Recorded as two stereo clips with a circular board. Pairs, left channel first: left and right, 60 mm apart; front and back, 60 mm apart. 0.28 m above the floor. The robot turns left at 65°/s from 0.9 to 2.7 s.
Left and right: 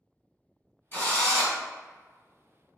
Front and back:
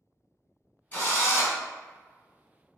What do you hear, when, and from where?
0.9 s a drill: 50° left, 1.5 m; by 1.6 s 10° left, 1.5 m